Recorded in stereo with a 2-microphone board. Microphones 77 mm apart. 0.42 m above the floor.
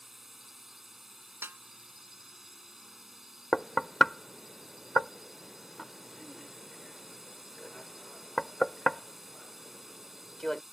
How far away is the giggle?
No giggle in this recording.